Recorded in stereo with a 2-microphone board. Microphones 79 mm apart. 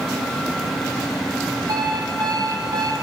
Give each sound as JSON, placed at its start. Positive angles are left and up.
{"t": 1.7, "sound": "an alarm clock", "side_deg": -65, "distance_m": 3.5}